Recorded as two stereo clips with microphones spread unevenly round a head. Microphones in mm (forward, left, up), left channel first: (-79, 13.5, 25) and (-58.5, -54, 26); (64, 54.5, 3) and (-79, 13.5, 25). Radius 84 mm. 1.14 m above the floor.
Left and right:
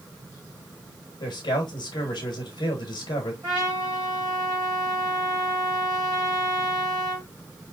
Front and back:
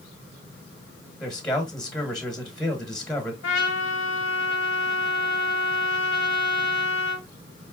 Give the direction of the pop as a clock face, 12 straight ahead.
I don't hear a pop.